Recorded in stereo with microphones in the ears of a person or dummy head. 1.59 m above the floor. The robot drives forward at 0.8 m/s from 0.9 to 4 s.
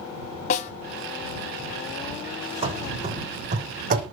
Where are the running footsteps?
30° right (ahead or behind), 4 m; by 4.0 s 45° right (ahead or behind), 4.5 m.